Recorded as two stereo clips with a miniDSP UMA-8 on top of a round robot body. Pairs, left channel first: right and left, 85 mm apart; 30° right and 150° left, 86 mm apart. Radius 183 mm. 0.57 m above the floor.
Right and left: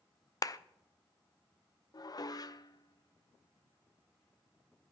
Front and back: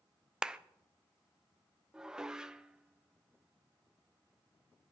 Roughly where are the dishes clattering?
Behind right.